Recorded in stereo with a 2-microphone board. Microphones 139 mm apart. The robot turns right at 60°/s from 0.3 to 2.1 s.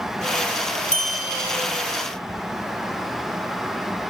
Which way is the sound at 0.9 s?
60° left (ahead or behind).